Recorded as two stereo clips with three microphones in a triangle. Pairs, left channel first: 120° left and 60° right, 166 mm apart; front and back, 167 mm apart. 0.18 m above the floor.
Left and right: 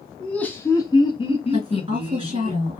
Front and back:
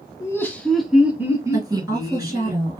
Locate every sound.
0.2 s laughter: 40° left, 1.1 m; by 2.5 s 140° left, 1.7 m
1.5 s a woman speaking: 110° right, 3 m